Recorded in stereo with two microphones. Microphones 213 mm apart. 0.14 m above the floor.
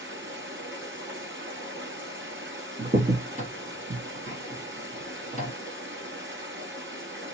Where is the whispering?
No whispering in this recording.